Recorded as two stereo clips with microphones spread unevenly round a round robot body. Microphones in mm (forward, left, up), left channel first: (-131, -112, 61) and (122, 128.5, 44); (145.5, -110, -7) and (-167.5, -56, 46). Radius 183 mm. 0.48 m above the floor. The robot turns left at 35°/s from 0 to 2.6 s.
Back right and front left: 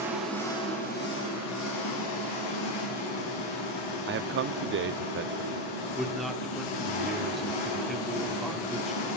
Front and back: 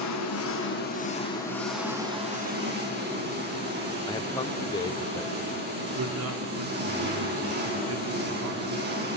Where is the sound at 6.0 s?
130° left, 1.2 m.